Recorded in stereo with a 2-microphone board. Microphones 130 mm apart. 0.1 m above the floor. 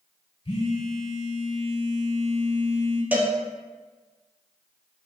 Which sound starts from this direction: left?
A phone buzzing, at 0.5 s.